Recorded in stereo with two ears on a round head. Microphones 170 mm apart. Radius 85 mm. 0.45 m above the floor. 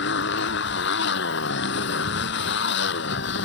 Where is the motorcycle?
65° left (ahead or behind).